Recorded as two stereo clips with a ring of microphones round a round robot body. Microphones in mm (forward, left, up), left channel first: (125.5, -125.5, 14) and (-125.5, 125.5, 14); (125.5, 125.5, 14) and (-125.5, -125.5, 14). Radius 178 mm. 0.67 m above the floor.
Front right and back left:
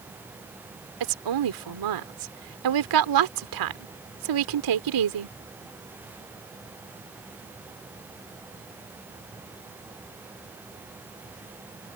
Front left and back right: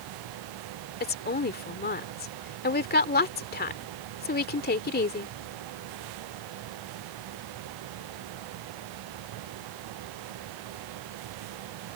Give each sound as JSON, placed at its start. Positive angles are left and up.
{"t": 1.0, "sound": "a woman speaking", "azimuth_deg": 110}